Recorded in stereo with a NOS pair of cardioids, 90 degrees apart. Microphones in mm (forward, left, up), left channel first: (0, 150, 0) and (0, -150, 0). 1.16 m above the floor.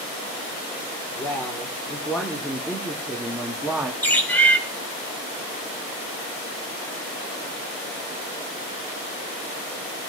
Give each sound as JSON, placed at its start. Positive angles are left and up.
{"t": 1.2, "sound": "a woman speaking", "azimuth_deg": 10, "distance_m": 4.0}
{"t": 4.0, "sound": "a bird", "azimuth_deg": 5, "distance_m": 5.5}